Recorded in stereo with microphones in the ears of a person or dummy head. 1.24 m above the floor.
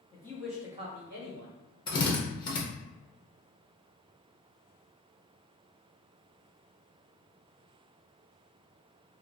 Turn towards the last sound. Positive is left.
turn(degrees=20)  # may be behind; listen again after turning